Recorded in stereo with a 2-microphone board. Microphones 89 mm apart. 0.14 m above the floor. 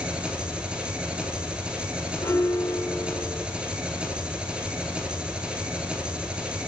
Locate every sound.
0.0 s an engine running: 10° right (ahead or behind), 1.0 m
2.2 s a piano: 30° left (ahead or behind), 0.8 m